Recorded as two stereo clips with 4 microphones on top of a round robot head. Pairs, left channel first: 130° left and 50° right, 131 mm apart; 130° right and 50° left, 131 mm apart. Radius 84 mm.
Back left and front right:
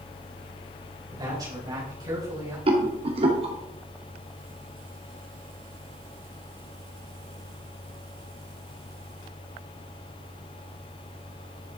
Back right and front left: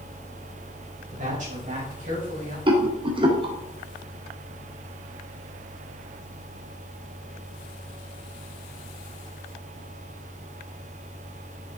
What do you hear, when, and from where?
1.1 s a woman speaking: 15° left, 4.5 m
2.7 s a rattle: 5° right, 2.5 m